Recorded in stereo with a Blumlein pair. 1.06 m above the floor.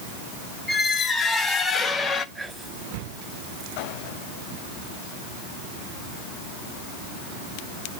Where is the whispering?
Straight ahead, 6 m.